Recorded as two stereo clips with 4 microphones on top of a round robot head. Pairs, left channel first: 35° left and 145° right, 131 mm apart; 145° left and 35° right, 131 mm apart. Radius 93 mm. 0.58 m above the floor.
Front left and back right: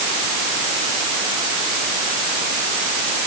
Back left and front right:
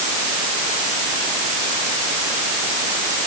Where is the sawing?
No sawing in this recording.